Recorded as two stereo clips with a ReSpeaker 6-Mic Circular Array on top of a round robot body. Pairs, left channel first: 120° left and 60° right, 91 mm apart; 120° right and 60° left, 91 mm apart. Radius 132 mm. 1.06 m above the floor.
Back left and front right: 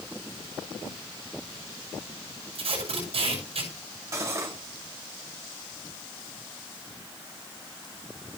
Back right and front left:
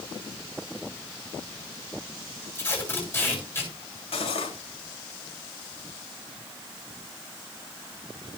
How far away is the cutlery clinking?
About 3 m.